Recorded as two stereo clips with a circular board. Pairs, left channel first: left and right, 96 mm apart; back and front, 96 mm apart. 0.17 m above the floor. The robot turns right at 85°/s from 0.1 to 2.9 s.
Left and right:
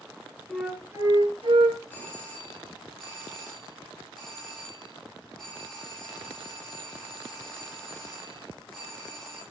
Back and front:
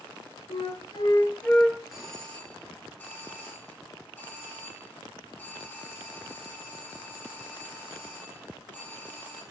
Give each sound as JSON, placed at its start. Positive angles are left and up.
{"t": 0.5, "sound": "a flute", "azimuth_deg": 175, "distance_m": 0.9}
{"t": 1.9, "sound": "a doorbell", "azimuth_deg": 85, "distance_m": 1.5}